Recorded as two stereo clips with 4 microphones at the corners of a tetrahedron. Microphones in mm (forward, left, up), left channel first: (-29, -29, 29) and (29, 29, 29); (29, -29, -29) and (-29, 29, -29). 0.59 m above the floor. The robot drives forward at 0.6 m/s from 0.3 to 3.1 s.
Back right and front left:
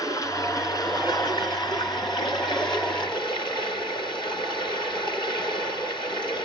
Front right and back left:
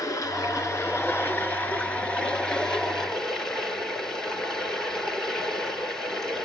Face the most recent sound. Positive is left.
turn(degrees=-130)